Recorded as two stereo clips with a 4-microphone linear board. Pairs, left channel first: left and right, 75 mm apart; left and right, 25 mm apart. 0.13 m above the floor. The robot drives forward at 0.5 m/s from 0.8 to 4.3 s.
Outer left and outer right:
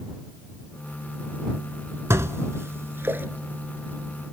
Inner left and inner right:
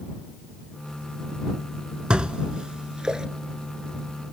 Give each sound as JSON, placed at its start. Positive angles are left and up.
{"t": 2.1, "sound": "dishes clattering", "side_deg": -40, "distance_m": 0.9}